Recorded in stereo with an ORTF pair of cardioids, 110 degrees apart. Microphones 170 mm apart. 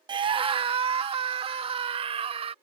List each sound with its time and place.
0.1 s a scream: 30° right; by 2.5 s 35° right